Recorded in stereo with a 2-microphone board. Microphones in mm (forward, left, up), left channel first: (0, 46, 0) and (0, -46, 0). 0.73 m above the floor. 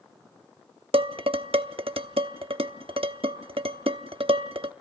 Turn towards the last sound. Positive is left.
turn(degrees=-75)  # may be behind; listen again after turning